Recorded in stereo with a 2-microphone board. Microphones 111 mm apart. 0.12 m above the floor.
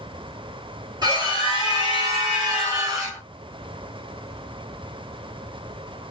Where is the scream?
40° right (ahead or behind), 1.8 m; by 3.2 s 35° right (ahead or behind), 1.4 m.